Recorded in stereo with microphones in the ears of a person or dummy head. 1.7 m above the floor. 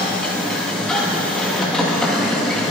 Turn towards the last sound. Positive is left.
turn(degrees=5)  # may be behind; listen again after turning